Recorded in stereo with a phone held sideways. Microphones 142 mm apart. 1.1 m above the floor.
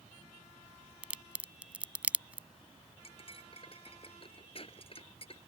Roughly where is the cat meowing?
No cat meowing in this recording.